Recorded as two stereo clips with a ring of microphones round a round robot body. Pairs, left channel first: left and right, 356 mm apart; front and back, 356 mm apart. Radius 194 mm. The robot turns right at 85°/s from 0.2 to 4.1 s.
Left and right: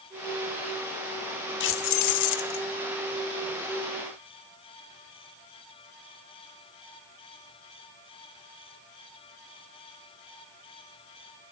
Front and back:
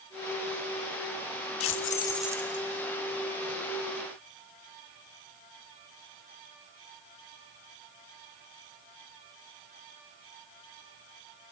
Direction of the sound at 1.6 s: 40° left.